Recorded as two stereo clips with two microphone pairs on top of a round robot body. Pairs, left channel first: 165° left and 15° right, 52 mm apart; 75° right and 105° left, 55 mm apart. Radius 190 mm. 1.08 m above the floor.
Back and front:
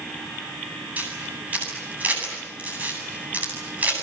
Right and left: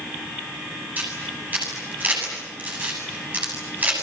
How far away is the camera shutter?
About 7.5 m.